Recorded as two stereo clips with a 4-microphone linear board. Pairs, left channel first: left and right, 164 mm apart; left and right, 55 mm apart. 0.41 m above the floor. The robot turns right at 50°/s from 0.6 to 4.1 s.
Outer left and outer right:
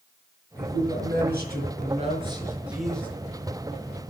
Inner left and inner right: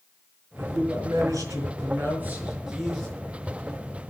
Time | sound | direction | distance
0.6 | a man speaking | 115° right | 5.5 m